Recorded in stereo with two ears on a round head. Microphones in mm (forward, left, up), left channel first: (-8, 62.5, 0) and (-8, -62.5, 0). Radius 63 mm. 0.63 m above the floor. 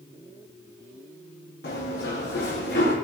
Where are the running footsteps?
85° left, 8 m; by 3.0 s 75° left (ahead or behind), 8 m.